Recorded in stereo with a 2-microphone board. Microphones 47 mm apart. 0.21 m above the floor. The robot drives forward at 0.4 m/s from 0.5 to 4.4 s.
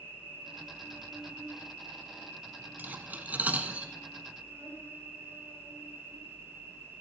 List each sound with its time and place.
0.0 s an insect: 45° right (ahead or behind), 6 m; by 7.0 s 55° right (ahead or behind), 5 m
2.8 s cutlery clinking: 45° right (ahead or behind), 1.0 m; by 3.9 s 30° right (ahead or behind), 1.2 m